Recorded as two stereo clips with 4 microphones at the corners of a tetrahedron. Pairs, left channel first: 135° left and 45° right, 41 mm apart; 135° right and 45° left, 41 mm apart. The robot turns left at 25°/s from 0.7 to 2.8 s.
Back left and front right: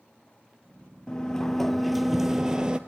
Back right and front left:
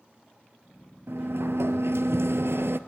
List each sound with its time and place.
1.1 s a sliding door: 65° left, 1.2 m; by 2.8 s 20° left, 1.2 m